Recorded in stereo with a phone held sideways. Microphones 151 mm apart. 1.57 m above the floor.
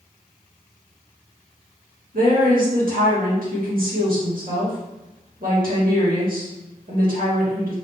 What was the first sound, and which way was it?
A woman speaking, 70° right (ahead or behind).